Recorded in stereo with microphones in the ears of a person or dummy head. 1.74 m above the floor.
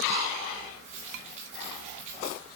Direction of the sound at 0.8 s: 35° right (ahead or behind).